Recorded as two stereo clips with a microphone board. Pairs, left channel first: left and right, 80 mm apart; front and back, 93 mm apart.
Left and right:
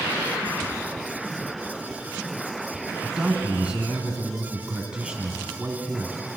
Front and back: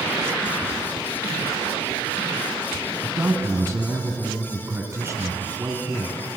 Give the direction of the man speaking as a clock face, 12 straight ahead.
5 o'clock.